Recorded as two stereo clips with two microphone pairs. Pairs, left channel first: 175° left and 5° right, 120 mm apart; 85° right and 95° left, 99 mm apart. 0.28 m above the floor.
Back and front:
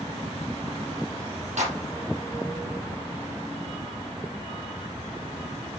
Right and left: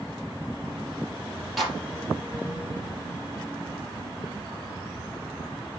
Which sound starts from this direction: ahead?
A clap, at 1.6 s.